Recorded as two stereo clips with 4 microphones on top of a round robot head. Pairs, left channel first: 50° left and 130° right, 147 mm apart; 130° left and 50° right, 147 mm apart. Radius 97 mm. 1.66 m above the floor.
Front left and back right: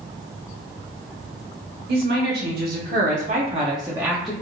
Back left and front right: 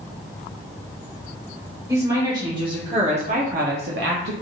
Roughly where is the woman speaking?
Behind right.